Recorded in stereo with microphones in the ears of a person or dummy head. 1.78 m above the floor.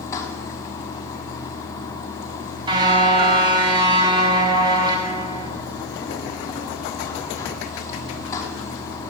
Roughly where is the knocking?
I don't hear knocking.